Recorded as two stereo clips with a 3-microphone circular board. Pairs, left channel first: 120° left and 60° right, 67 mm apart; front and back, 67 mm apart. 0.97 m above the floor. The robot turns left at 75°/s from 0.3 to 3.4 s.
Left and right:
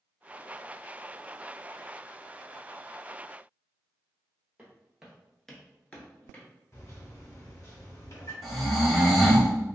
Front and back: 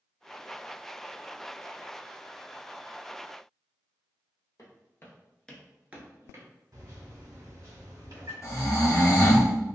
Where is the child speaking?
No child speaking in this recording.